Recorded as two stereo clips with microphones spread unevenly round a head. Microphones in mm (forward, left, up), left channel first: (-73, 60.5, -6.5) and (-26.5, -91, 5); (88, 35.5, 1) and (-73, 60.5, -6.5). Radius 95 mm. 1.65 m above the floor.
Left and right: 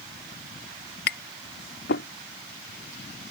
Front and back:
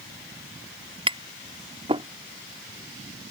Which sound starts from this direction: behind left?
Tapping, at 1.1 s.